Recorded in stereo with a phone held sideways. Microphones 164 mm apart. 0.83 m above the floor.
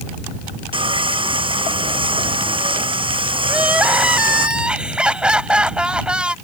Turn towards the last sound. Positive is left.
turn(degrees=-5)  # may be behind; listen again after turning